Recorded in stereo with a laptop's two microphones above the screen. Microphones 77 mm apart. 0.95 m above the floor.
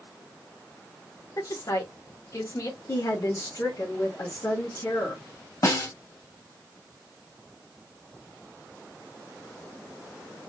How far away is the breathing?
I don't hear breathing.